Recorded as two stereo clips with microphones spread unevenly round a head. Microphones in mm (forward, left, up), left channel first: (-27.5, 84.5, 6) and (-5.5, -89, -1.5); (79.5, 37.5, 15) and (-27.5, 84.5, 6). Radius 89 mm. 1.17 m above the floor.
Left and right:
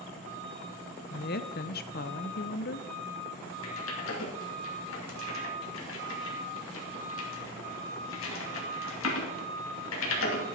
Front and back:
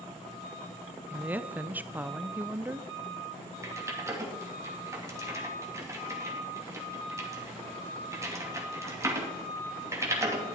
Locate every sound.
1.1 s a woman speaking: 90° left, 0.7 m
3.6 s typing on a keyboard: 95° left, 2.5 m